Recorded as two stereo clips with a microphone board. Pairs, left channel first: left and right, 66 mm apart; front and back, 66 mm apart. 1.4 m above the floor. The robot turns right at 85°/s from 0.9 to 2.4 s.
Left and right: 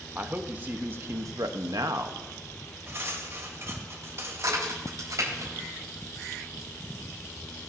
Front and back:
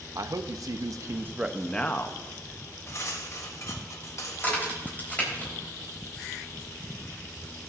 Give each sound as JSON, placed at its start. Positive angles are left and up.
{"t": 0.1, "sound": "a man speaking", "azimuth_deg": -150, "distance_m": 0.7}
{"t": 2.9, "sound": "cutlery clinking", "azimuth_deg": -40, "distance_m": 1.3}
{"t": 4.4, "sound": "a crack", "azimuth_deg": -65, "distance_m": 4.0}